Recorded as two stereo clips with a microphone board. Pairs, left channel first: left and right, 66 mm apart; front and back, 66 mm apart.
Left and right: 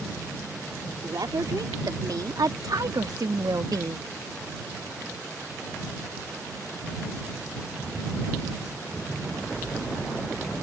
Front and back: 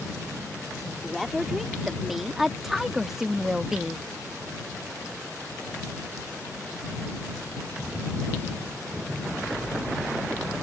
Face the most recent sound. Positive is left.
turn(degrees=-100)